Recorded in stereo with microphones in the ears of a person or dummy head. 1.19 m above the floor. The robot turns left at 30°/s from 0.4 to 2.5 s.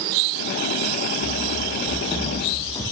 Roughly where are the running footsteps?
Centre.